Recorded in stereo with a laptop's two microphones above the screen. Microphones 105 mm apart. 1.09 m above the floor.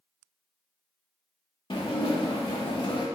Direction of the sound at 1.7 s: 50° left (ahead or behind).